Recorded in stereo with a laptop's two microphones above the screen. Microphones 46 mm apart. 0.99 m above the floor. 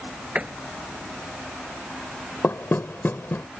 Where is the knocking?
55° left (ahead or behind).